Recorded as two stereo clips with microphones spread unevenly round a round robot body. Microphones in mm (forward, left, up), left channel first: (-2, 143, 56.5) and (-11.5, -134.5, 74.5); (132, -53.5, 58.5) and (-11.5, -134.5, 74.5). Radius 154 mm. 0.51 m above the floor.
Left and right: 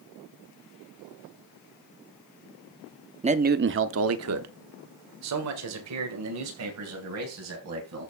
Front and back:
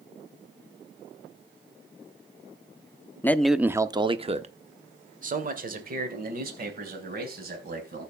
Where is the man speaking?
30° right, 0.9 m; by 8.1 s 125° right, 4 m.